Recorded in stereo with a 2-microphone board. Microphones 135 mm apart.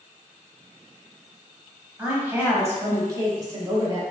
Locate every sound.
2.0 s a woman speaking: 10° right (ahead or behind), 1.0 m; by 4.0 s 30° right (ahead or behind), 1.4 m